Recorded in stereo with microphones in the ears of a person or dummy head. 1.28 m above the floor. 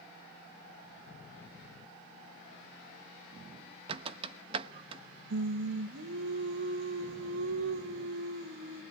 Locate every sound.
3.9 s a squeak: 35° right (ahead or behind), 0.9 m
5.3 s singing: 75° right (ahead or behind), 1.4 m